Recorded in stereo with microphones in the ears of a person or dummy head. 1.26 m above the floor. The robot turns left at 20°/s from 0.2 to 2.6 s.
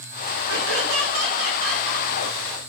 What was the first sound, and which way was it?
Laughter, 70° right.